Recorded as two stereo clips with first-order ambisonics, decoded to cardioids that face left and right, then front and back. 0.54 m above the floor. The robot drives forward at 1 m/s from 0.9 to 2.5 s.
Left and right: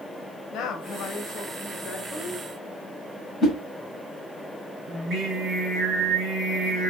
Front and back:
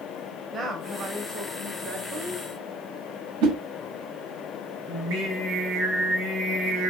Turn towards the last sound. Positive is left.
turn(degrees=-155)